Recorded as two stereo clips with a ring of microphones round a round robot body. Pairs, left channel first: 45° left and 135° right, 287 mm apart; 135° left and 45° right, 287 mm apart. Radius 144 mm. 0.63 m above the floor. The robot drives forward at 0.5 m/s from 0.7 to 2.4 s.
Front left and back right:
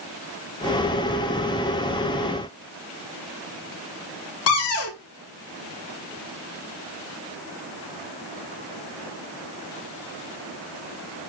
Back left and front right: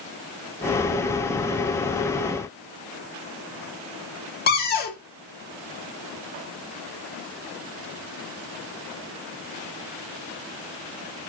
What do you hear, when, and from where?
4.5 s a cupboard door: 80° left, 0.7 m